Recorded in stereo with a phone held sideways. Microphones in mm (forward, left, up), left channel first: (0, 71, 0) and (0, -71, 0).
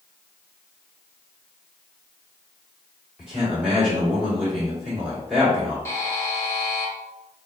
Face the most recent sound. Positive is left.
turn(degrees=20)  # may be behind; listen again after turning